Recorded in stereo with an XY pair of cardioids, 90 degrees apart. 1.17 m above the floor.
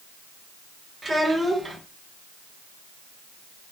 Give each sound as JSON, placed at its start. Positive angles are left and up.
{"t": 1.0, "sound": "a child speaking", "azimuth_deg": -30, "distance_m": 1.5}